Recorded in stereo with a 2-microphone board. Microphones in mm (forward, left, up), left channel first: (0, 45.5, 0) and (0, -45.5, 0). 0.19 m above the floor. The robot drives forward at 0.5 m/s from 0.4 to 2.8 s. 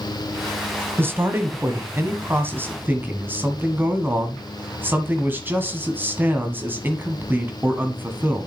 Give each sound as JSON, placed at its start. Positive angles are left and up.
{"t": 1.0, "sound": "a man speaking", "side_deg": -25, "distance_m": 1.3}